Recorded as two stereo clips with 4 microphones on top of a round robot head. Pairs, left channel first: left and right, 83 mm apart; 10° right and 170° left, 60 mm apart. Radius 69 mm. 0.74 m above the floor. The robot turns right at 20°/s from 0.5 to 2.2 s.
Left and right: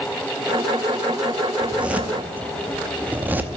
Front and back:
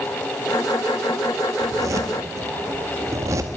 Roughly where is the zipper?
Behind.